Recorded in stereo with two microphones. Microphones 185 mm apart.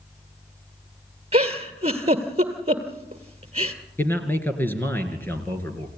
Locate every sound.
1.3 s a giggle: 35° right (ahead or behind), 1.8 m
4.0 s a man speaking: 10° left (ahead or behind), 2.5 m